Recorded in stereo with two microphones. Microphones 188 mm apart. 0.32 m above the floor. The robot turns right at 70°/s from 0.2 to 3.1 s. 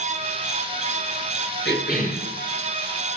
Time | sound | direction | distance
1.6 | a cough | 105° left | 6 m